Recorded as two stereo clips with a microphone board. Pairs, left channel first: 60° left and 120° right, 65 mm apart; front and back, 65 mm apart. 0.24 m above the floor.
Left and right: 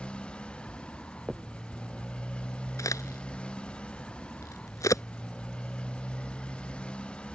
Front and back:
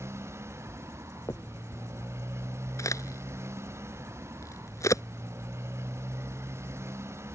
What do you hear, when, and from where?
0.0 s a motorcycle: 135° left
1.3 s a finger snap: 35° right
2.8 s a crack: 30° left